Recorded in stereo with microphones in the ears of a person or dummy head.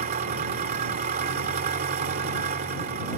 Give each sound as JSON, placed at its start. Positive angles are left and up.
{"t": 0.0, "sound": "an engine running", "side_deg": -45}